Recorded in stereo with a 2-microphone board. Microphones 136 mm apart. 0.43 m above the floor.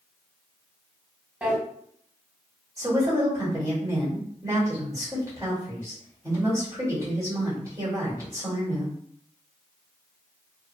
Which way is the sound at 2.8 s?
25° right (ahead or behind).